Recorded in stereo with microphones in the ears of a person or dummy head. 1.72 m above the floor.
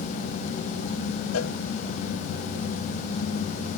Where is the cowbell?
85° left.